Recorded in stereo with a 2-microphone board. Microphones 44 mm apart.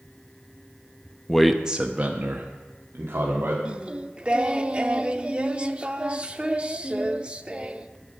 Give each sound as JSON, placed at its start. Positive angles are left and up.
{"t": 1.3, "sound": "a man speaking", "side_deg": 10, "distance_m": 0.7}
{"t": 3.6, "sound": "singing", "side_deg": -25, "distance_m": 0.5}